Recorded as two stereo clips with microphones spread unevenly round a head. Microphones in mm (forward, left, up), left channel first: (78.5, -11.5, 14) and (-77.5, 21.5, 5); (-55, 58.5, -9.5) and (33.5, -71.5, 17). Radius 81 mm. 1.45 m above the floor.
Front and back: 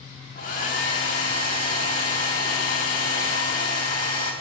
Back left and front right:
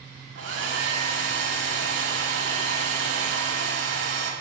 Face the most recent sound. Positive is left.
turn(degrees=-55)